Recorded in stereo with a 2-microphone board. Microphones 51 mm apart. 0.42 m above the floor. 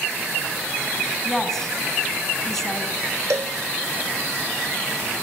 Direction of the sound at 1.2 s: 5° left (ahead or behind).